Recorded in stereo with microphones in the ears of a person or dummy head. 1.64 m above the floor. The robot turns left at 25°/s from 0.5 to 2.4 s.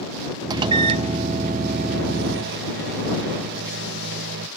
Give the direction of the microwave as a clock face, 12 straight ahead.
1 o'clock.